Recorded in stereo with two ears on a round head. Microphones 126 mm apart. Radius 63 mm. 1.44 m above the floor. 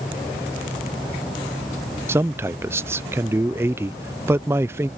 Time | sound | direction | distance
2.1 | a man speaking | 15° right (ahead or behind) | ?